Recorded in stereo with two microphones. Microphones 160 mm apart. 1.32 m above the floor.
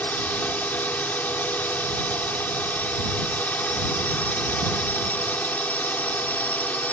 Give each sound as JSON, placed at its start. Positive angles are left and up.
{"t": 0.0, "sound": "a drone", "side_deg": 10}